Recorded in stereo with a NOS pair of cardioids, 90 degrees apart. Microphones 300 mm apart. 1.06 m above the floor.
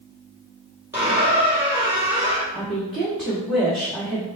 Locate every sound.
0.9 s a squeak: 10° right, 2.5 m
2.5 s a woman speaking: straight ahead, 1.9 m